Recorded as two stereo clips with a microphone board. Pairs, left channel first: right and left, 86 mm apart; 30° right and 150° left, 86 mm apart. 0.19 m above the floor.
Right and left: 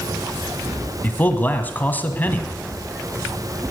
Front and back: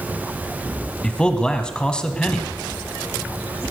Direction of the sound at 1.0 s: 90° right.